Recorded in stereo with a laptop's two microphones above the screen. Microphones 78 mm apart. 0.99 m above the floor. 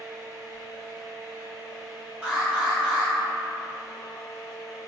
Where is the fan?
55° right (ahead or behind), 2.0 m.